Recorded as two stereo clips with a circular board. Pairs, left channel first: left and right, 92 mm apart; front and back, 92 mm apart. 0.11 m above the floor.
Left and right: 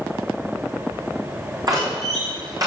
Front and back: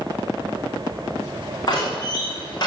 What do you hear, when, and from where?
1.7 s a door slam: 40° right, 5.5 m